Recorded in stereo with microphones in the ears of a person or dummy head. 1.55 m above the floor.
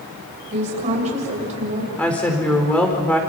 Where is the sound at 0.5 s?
35° right (ahead or behind), 8 m.